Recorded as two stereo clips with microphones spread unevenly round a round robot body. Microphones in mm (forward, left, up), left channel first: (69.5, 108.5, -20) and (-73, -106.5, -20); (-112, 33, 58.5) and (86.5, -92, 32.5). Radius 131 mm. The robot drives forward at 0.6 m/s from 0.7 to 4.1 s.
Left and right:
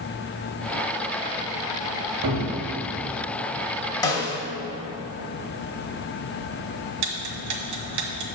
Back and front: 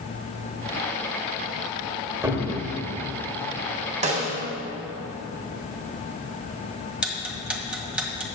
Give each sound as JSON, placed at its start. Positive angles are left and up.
{"t": 2.2, "sound": "a cupboard door", "azimuth_deg": -100, "distance_m": 1.9}
{"t": 4.0, "sound": "a snare drum", "azimuth_deg": -5, "distance_m": 1.6}
{"t": 7.0, "sound": "ticking", "azimuth_deg": -115, "distance_m": 1.5}